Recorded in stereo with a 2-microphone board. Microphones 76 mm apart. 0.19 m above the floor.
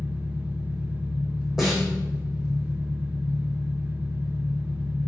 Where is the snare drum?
5° right (ahead or behind), 4 m.